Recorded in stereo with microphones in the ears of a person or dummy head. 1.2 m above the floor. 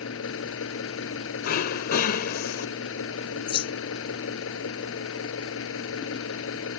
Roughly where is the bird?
Left.